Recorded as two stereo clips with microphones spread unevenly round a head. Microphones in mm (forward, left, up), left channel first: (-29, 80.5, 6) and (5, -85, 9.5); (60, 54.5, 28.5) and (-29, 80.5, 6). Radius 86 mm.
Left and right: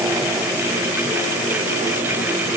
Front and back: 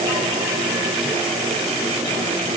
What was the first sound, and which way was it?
Only background noise.